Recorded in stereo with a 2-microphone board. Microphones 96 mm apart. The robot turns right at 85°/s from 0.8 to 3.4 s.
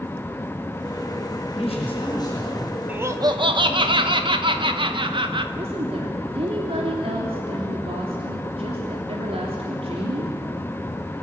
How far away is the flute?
No flute in this recording.